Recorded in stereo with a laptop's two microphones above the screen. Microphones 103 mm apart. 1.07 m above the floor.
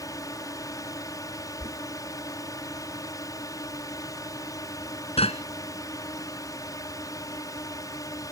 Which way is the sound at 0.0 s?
35° left (ahead or behind).